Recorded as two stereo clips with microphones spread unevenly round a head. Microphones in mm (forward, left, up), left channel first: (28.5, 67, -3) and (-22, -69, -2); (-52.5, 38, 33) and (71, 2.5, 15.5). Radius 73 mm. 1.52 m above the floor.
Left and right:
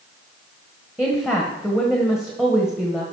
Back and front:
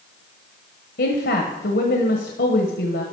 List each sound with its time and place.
1.0 s a woman speaking: 165° left, 1.2 m